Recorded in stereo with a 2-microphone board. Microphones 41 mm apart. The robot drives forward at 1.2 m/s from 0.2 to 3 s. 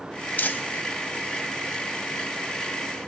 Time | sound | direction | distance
0.4 | crumpling | 45° left (ahead or behind) | 1.1 m